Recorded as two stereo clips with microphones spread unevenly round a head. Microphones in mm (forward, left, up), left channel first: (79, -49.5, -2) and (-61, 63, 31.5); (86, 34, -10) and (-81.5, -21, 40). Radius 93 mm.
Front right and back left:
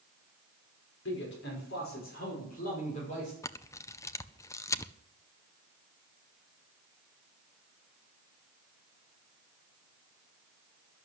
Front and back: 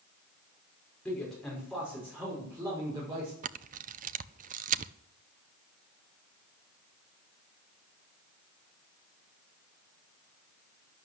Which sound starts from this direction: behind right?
A camera shutter, at 3.4 s.